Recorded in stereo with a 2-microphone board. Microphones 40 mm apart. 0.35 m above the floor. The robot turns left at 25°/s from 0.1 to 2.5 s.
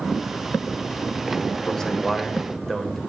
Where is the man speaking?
15° left (ahead or behind), 1.2 m; by 3.0 s 5° left (ahead or behind), 1.2 m.